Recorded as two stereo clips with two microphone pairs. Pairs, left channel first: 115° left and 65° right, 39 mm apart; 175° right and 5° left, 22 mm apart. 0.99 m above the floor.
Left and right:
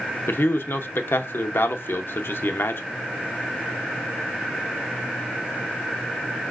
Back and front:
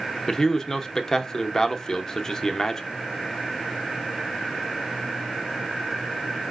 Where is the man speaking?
115° left, 0.6 m.